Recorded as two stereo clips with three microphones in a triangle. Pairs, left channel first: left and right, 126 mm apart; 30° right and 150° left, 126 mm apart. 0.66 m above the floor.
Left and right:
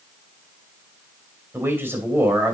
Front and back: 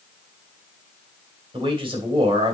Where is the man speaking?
165° right, 2.5 m.